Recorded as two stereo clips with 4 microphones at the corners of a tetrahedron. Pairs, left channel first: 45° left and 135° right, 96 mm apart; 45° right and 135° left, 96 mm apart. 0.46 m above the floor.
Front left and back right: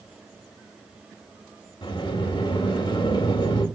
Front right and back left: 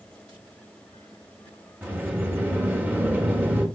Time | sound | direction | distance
1.8 | a sliding door | 65° left | 2.5 m